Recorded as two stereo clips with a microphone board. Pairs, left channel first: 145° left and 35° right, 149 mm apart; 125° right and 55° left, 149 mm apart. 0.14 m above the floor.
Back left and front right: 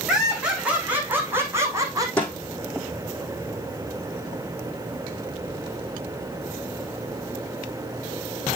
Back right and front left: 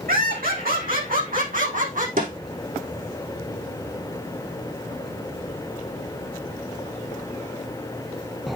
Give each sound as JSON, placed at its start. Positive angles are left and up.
{"t": 0.1, "sound": "laughter", "azimuth_deg": 55, "distance_m": 5.5}
{"t": 2.2, "sound": "a snare drum", "azimuth_deg": 65, "distance_m": 5.5}